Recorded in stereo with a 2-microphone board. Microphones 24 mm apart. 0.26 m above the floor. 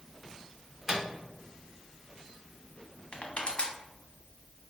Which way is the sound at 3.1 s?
55° left (ahead or behind).